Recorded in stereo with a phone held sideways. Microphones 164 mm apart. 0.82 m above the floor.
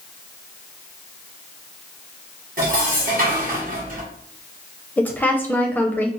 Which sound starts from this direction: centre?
A woman speaking, at 5.0 s.